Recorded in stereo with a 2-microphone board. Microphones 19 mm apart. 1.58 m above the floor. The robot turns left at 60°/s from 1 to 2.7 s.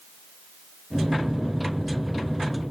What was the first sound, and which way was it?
Only background noise.